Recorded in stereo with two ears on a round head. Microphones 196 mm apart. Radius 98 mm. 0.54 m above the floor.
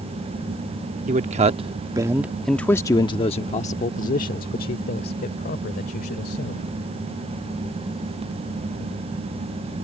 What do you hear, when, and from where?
1.1 s a man speaking: 35° right (ahead or behind); by 6.7 s 45° left (ahead or behind)